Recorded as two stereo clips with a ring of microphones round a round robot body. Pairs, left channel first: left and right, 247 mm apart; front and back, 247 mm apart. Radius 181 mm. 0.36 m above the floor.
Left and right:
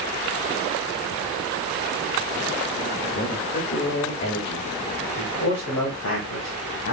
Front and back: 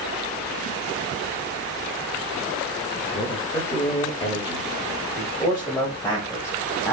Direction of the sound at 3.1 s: 60° left.